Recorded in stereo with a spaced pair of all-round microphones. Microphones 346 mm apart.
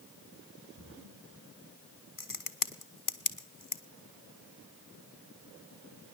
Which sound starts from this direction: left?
A crack, at 2.2 s.